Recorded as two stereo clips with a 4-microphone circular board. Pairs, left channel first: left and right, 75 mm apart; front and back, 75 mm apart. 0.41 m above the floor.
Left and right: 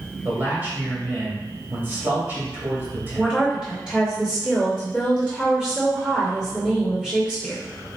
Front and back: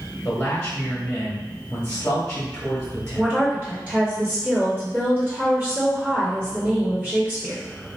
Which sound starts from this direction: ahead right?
A man speaking, at 0.2 s.